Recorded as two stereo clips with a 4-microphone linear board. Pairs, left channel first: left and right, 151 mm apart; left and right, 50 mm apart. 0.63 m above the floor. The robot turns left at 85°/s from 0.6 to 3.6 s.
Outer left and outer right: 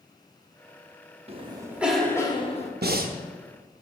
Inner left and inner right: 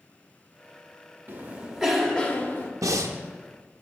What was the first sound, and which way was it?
A cough, 125° right.